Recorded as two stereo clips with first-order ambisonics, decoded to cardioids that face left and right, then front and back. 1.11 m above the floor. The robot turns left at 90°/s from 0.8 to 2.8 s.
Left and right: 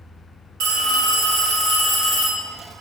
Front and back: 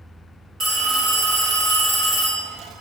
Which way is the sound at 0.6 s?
120° right.